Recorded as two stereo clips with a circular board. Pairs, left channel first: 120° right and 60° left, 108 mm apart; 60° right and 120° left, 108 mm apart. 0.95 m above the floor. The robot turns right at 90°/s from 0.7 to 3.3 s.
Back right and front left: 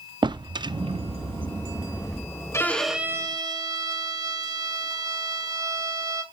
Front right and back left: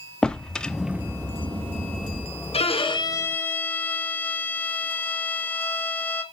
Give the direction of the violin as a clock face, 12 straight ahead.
2 o'clock.